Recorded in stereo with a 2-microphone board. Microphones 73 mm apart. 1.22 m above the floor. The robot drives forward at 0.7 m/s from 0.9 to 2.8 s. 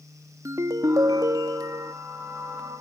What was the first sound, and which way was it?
A ringtone, 45° right (ahead or behind).